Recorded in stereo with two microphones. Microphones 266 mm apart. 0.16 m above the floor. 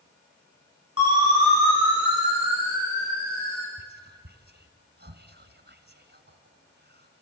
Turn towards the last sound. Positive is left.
turn(degrees=-40)  # may be behind; listen again after turning